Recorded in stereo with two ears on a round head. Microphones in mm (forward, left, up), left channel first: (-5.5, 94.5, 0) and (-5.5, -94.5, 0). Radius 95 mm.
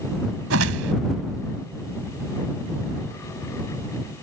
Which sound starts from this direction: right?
A whoosh, at 0.5 s.